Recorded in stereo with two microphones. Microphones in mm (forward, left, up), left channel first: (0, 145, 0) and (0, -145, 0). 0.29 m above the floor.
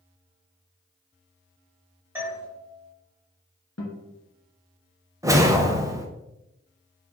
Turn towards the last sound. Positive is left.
turn(degrees=-10)  # may be behind; listen again after turning